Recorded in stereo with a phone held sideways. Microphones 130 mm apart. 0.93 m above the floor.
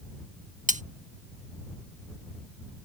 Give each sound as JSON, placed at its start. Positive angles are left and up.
{"t": 0.7, "sound": "cutlery clinking", "side_deg": -70}